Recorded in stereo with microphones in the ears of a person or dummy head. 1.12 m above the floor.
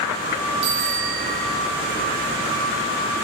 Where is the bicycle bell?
65° right (ahead or behind), 5.5 m.